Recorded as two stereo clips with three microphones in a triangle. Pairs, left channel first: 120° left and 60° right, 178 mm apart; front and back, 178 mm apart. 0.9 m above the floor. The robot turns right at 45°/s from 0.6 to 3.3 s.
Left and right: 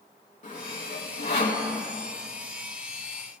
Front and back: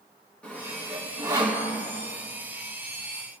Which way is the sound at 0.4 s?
80° left.